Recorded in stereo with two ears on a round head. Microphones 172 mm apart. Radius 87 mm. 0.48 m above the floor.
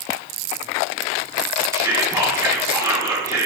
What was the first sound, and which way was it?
Whispering, 15° right (ahead or behind).